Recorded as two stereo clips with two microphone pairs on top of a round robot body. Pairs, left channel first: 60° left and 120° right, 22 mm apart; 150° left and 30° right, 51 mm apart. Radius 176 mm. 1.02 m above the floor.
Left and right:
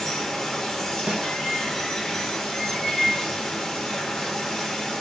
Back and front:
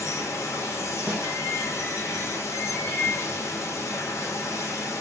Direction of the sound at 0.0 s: 130° left.